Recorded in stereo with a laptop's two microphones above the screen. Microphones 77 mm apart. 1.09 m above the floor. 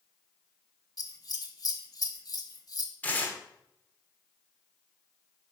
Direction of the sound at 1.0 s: 50° left (ahead or behind).